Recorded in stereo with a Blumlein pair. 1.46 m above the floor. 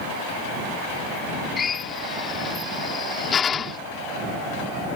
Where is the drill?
20° left.